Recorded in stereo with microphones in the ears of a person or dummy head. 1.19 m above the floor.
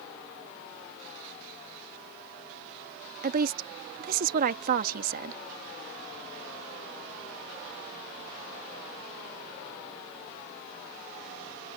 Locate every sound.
3.2 s a woman speaking: 50° right (ahead or behind)